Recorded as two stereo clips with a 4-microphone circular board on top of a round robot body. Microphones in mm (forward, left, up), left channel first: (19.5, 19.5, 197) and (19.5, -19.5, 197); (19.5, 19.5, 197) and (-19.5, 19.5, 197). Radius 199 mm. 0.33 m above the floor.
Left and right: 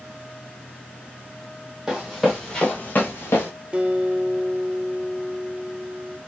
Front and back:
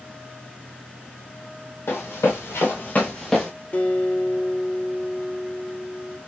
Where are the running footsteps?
15° right, 1.0 m; by 3.5 s 90° left, 0.8 m.